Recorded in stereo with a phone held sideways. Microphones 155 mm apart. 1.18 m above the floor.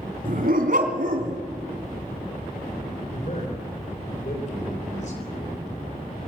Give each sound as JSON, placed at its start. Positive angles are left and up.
{"t": 0.2, "sound": "a dog barking", "side_deg": -65, "distance_m": 3.0}
{"t": 3.1, "sound": "a man speaking", "side_deg": 50, "distance_m": 4.0}